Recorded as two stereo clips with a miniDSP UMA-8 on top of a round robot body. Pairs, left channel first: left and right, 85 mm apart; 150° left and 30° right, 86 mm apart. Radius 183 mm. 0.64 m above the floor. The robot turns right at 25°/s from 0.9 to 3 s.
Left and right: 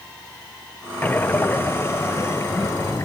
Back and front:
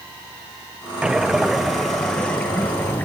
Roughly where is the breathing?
Ahead left.